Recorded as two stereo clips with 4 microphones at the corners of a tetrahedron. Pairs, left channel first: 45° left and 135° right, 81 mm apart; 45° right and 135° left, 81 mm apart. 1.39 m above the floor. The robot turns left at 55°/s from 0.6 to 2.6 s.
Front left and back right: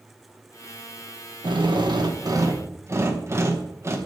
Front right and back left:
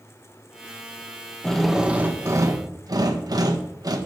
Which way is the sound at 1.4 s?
125° right.